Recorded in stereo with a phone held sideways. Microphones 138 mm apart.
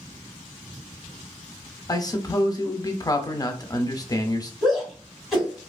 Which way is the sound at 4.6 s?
Centre (ahead or behind).